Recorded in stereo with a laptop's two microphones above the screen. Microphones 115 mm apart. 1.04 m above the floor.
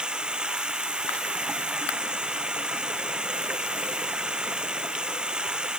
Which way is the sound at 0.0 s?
10° right (ahead or behind).